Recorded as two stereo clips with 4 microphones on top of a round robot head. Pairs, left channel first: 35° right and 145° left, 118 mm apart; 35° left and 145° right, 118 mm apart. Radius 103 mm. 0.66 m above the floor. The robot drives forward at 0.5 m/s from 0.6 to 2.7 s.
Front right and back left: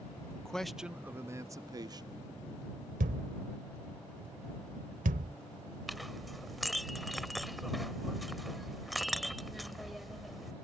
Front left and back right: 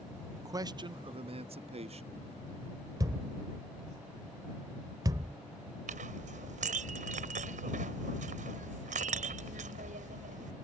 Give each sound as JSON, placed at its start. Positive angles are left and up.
{"t": 0.4, "sound": "a man speaking", "azimuth_deg": -120}
{"t": 3.0, "sound": "a thud", "azimuth_deg": 155}
{"t": 5.9, "sound": "a clink", "azimuth_deg": -125}